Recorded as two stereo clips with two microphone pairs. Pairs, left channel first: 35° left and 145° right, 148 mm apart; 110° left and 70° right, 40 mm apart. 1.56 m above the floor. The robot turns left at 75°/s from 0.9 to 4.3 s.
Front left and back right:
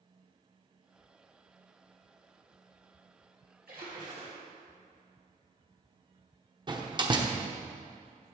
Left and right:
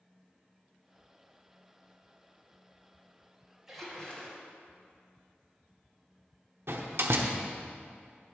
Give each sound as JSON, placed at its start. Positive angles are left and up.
{"t": 3.7, "sound": "a splash", "azimuth_deg": -150, "distance_m": 2.5}
{"t": 6.7, "sound": "a door slam", "azimuth_deg": -85, "distance_m": 0.9}